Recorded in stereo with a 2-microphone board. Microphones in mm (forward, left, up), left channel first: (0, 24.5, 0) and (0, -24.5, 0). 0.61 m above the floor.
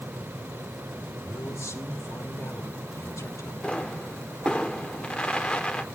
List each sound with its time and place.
1.2 s a man speaking: 65° left (ahead or behind), 1.7 m
3.6 s a pop: 20° left (ahead or behind), 1.0 m